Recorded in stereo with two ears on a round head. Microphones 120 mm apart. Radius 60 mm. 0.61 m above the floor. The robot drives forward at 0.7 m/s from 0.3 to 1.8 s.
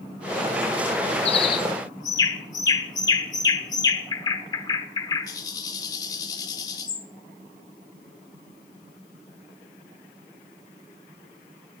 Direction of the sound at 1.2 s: 45° left (ahead or behind).